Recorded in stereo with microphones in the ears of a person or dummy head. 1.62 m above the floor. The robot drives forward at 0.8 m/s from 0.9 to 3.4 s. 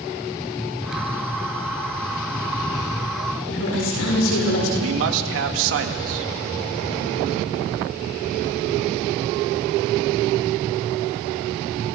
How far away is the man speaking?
About 2 m.